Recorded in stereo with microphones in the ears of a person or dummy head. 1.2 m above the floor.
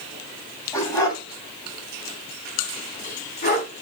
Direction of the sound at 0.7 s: 20° left (ahead or behind).